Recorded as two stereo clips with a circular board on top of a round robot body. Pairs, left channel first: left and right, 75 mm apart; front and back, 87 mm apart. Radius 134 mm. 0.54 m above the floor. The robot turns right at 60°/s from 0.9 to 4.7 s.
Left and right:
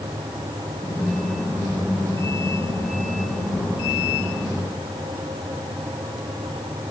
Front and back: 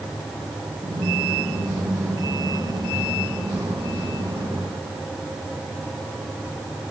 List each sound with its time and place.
Only background noise.